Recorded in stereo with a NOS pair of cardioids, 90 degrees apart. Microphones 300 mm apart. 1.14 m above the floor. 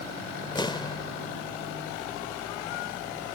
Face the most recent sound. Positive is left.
turn(degrees=15)